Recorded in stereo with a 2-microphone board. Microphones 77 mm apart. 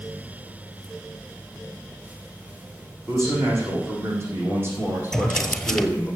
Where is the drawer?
10° left (ahead or behind), 1.1 m.